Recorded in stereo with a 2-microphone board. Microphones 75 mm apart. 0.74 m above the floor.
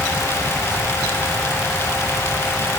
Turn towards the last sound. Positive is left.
No sound to turn to.